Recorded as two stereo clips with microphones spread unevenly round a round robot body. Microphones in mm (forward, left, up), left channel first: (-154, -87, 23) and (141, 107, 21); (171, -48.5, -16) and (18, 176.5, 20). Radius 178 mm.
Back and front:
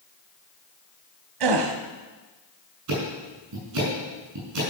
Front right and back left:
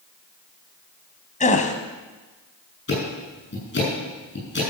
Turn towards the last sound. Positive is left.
turn(degrees=-10)